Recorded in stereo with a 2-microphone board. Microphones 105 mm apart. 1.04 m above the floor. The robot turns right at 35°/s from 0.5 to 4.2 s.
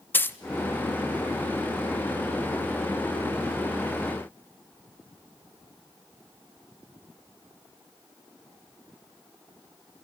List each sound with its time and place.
0.1 s a dropped coin: 20° left (ahead or behind), 0.5 m